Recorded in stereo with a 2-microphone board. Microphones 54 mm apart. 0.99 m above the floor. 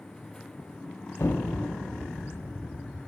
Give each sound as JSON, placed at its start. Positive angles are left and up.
{"t": 1.2, "sound": "an explosion", "side_deg": 60, "distance_m": 0.7}